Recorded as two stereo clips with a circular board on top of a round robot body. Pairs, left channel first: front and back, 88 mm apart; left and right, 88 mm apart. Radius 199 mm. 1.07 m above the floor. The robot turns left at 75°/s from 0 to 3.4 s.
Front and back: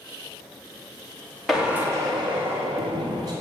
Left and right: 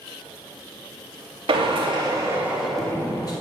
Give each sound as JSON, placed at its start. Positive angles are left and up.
{"t": 1.5, "sound": "a drill", "azimuth_deg": -90, "distance_m": 1.9}